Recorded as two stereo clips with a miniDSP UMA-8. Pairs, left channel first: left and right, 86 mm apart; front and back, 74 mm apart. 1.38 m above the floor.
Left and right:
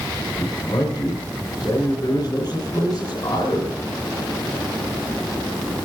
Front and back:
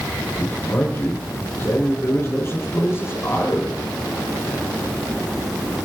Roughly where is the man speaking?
Ahead left.